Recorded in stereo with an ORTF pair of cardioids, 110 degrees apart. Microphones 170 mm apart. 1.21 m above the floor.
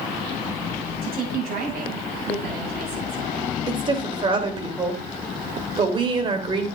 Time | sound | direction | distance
1.0 | a woman speaking | 70° right | 6.5 m
3.7 | a woman speaking | 30° right | 3 m